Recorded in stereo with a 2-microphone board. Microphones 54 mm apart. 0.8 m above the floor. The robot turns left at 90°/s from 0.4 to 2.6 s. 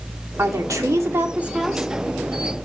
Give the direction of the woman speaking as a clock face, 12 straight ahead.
2 o'clock.